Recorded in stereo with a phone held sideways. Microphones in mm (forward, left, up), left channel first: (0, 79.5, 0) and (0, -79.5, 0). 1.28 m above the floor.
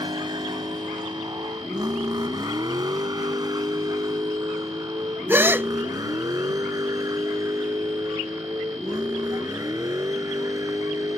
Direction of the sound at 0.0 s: 30° right (ahead or behind).